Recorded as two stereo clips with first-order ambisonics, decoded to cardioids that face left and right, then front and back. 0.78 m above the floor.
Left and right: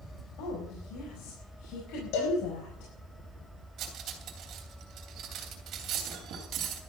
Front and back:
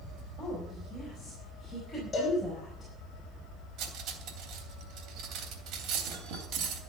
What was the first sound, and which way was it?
A woman speaking, 90° left.